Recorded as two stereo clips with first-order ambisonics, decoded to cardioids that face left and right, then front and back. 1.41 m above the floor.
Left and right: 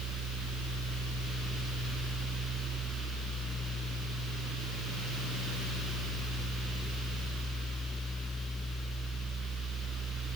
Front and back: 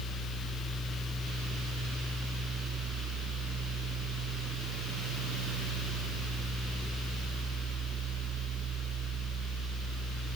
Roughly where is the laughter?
No laughter in this recording.